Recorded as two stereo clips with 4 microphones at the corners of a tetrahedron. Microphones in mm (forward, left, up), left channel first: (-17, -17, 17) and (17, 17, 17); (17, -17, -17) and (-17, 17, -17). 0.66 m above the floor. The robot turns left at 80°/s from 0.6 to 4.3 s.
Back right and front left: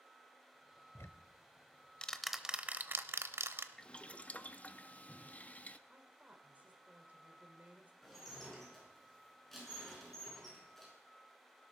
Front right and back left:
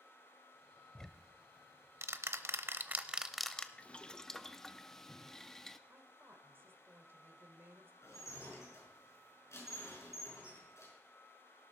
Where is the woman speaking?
100° left, 2 m.